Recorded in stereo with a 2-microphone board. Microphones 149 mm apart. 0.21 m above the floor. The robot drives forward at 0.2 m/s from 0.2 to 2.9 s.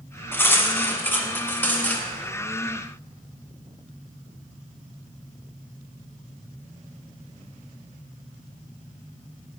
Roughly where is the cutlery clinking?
Centre.